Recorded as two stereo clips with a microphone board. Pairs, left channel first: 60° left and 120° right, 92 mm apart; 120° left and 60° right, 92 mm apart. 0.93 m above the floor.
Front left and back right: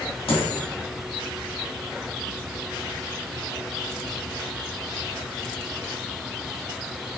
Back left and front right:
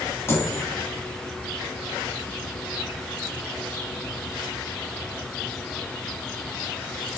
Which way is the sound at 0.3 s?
55° left.